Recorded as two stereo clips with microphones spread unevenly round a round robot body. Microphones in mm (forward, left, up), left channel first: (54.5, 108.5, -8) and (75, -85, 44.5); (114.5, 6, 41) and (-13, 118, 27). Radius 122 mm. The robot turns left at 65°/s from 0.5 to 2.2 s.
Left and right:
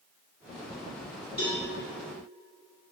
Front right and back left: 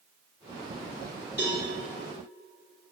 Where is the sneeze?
I don't hear a sneeze.